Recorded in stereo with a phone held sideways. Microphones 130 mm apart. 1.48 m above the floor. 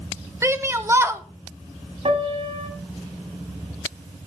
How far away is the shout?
About 0.9 m.